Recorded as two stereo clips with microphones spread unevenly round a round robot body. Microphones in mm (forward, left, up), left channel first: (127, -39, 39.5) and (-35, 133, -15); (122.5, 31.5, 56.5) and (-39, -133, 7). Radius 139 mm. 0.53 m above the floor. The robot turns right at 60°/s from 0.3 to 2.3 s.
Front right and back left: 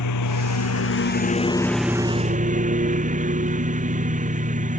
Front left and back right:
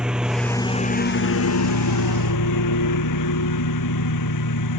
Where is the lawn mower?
45° right; by 4.8 s 75° left.